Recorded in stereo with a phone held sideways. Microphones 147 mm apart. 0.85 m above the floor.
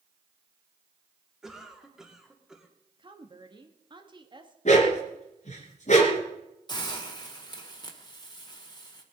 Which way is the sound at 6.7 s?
30° left (ahead or behind).